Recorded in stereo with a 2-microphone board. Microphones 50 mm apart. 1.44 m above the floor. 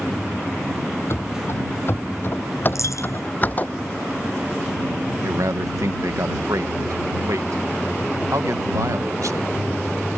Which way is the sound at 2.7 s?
70° left (ahead or behind).